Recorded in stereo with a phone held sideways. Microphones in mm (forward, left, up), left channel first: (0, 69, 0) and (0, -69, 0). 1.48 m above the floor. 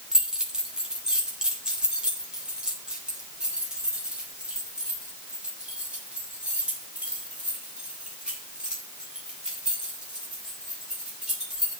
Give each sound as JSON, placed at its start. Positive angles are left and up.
{"t": 0.1, "sound": "keys jangling", "side_deg": -5, "distance_m": 3.0}